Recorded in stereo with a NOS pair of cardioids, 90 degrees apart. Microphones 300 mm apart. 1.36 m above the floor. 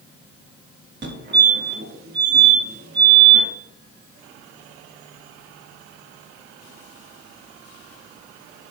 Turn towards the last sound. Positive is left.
turn(degrees=-40)